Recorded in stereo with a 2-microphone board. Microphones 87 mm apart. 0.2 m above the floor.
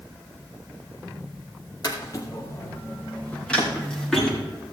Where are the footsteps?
45° left (ahead or behind), 3.5 m; by 4.4 s centre (ahead or behind), 5 m.